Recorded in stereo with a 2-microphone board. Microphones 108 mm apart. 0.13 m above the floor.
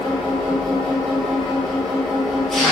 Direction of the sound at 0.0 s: Centre (ahead or behind).